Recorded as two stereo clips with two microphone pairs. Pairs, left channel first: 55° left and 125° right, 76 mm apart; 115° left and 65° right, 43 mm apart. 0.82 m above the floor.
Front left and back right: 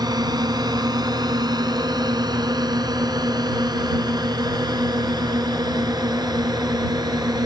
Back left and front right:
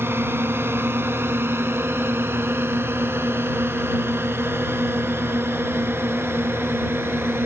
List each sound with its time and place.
0.0 s a drone: 90° right